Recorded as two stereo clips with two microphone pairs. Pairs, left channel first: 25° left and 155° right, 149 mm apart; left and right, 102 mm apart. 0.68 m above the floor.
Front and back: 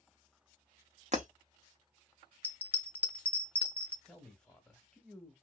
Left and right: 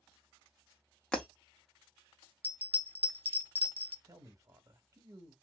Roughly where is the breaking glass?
Behind.